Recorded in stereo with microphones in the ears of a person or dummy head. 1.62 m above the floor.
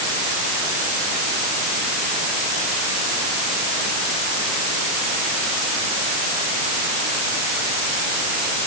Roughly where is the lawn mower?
I don't hear a lawn mower.